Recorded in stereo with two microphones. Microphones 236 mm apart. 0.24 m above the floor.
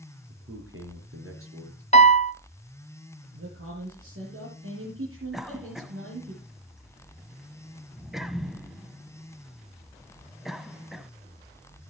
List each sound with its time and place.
0.3 s a man speaking: 70° right (ahead or behind), 4.5 m
1.9 s a piano: 30° left (ahead or behind), 0.6 m
3.3 s a man speaking: 65° right (ahead or behind), 5.5 m
5.3 s a cough: centre (ahead or behind), 1.3 m